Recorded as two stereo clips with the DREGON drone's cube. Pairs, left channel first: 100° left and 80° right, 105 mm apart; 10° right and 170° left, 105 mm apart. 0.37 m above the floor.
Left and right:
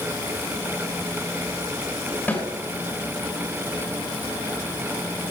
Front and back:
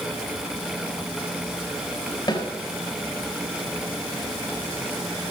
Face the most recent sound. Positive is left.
turn(degrees=25)